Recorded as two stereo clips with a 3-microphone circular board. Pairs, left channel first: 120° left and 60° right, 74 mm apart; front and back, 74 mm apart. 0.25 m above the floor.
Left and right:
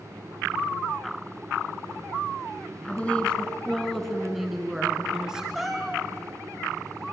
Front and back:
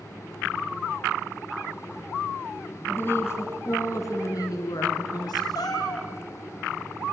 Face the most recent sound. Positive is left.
turn(degrees=30)